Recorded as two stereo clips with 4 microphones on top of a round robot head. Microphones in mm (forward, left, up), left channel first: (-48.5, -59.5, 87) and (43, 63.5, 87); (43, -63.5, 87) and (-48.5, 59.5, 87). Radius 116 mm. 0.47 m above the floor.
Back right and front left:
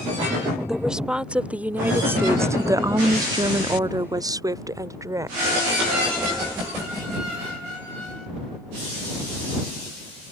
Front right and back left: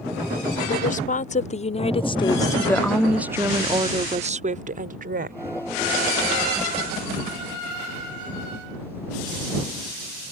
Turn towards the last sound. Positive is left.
turn(degrees=125)